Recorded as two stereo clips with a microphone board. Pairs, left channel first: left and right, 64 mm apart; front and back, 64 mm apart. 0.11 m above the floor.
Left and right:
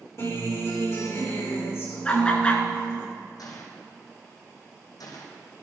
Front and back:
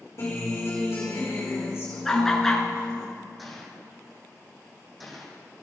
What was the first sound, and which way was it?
A guitar, 45° left.